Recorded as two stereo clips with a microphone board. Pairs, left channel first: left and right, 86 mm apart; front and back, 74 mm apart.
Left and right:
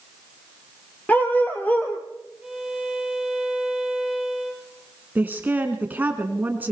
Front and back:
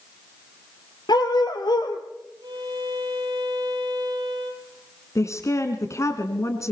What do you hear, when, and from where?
1.1 s a dog barking: 20° left, 2.5 m
2.4 s a violin: 175° right, 4.5 m
5.2 s a woman speaking: 30° right, 1.6 m